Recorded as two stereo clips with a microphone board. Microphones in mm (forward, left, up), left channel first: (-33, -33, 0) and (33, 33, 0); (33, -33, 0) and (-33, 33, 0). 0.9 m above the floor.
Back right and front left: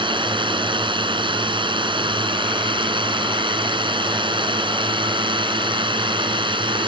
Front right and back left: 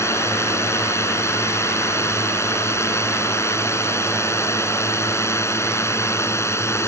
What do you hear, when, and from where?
0.0 s a drone: 15° left